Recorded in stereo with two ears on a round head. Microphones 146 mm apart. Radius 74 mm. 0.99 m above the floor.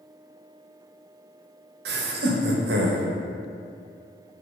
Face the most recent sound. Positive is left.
turn(degrees=-70)  # may be behind; listen again after turning